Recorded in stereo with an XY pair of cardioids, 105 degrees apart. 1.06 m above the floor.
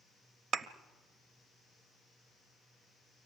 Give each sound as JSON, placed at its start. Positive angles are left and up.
{"t": 0.5, "sound": "a thud", "azimuth_deg": -55, "distance_m": 1.0}